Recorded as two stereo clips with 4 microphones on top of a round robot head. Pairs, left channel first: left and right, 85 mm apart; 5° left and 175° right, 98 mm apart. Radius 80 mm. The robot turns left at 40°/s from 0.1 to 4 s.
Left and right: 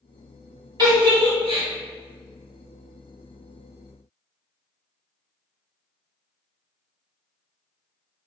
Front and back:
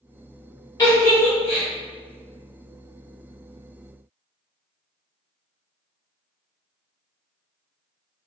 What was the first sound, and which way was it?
A giggle, 55° right.